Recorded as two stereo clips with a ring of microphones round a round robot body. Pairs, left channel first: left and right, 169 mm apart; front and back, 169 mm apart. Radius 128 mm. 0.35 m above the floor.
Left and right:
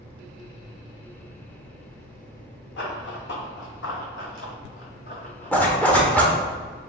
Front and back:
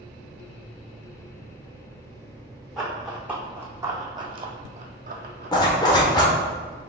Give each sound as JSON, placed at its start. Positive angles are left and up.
{"t": 2.8, "sound": "running footsteps", "azimuth_deg": 90, "distance_m": 1.5}
{"t": 5.5, "sound": "a zipper", "azimuth_deg": 20, "distance_m": 0.9}